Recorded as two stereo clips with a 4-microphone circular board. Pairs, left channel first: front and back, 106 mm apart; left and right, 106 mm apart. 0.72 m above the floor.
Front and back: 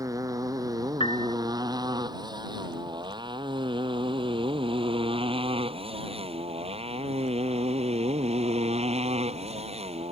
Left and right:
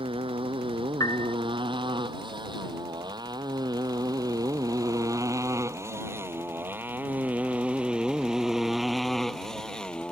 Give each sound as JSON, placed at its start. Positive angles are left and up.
{"t": 0.0, "sound": "a motorcycle", "azimuth_deg": -125}
{"t": 1.0, "sound": "a piano", "azimuth_deg": 35}